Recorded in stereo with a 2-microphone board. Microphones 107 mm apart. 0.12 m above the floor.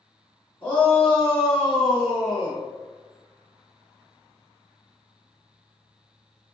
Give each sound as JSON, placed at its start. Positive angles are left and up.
{"t": 0.6, "sound": "a shout", "side_deg": 15, "distance_m": 1.4}